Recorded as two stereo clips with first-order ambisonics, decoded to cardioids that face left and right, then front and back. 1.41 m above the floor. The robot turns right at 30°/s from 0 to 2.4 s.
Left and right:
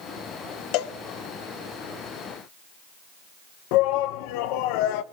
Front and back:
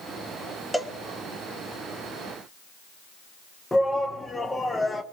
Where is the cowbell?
85° left, 1.2 m; by 0.9 s 95° left, 1.2 m.